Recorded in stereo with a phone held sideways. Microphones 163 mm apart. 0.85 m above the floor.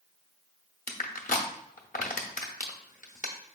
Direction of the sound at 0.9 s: 55° left (ahead or behind).